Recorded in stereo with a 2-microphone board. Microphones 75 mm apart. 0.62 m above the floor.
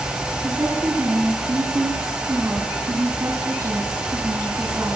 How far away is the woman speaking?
About 4.5 m.